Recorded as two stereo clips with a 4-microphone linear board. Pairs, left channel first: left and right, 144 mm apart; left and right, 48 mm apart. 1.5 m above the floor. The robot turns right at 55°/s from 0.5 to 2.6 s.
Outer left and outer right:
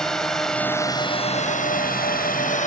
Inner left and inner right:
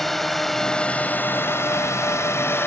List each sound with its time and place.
0.0 s a drone: 5° left (ahead or behind); by 2.7 s 60° left (ahead or behind)